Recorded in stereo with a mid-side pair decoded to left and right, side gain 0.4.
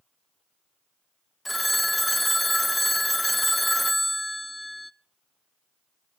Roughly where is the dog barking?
No dog barking in this recording.